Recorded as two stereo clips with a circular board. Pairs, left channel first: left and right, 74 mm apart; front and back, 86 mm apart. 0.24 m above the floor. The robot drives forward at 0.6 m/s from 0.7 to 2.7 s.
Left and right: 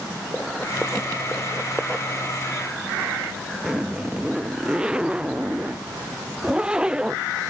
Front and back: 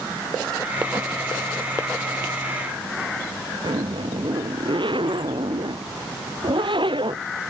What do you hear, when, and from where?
3.6 s a zipper: 170° right